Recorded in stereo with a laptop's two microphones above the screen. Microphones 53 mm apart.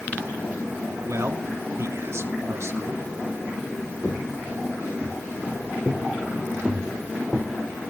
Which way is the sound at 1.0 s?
60° right (ahead or behind).